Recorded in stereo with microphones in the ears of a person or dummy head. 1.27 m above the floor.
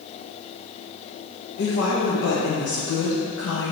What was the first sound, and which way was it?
A woman speaking, 75° left (ahead or behind).